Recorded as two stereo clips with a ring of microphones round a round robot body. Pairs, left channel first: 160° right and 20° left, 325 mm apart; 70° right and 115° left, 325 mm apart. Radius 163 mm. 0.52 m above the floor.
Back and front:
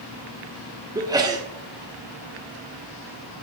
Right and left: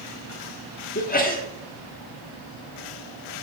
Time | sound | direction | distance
0.9 | a sneeze | 45° right | 1.4 m